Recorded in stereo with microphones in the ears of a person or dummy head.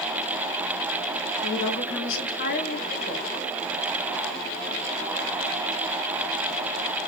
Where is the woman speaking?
70° left (ahead or behind), 1.6 m; by 3.3 s 30° left (ahead or behind), 1.9 m.